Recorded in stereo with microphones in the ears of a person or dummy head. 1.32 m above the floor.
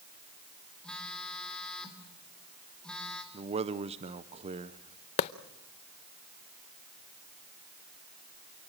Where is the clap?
35° left (ahead or behind), 0.5 m.